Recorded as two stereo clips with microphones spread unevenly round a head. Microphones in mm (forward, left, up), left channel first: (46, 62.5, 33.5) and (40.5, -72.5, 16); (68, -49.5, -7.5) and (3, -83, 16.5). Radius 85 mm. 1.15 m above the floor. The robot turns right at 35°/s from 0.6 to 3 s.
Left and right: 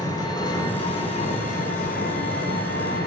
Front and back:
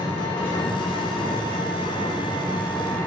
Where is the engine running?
30° left, 0.7 m; by 3.1 s 115° left, 0.7 m.